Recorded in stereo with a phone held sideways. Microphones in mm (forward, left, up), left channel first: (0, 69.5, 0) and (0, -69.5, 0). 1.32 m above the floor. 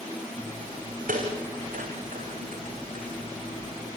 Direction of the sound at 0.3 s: 75° right (ahead or behind).